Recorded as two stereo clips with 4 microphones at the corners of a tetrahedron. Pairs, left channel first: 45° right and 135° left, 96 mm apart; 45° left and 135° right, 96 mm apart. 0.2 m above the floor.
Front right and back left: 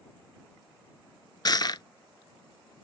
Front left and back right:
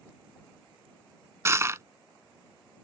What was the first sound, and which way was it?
Crushing, 80° right.